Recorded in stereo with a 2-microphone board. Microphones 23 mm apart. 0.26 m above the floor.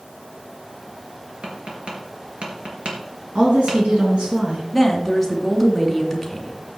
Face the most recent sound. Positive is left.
turn(degrees=-5)  # may be behind; listen again after turning